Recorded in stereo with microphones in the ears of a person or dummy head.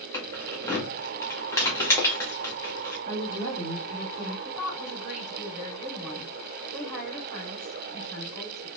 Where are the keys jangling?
15° left (ahead or behind), 1.3 m.